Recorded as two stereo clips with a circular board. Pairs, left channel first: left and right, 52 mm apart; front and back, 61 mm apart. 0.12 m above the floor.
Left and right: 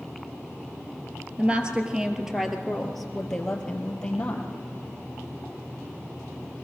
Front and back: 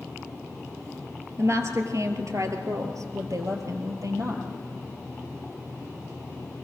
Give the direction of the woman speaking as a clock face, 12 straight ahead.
5 o'clock.